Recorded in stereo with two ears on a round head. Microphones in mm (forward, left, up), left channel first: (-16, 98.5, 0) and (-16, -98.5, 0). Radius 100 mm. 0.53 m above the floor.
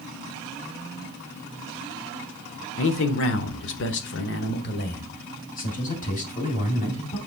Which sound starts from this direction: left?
A man speaking, at 2.8 s.